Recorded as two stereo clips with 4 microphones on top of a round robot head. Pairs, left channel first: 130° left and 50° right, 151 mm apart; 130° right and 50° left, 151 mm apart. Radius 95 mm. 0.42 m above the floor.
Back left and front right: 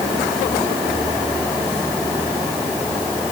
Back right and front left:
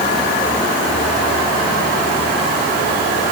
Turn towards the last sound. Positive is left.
No sound to turn to.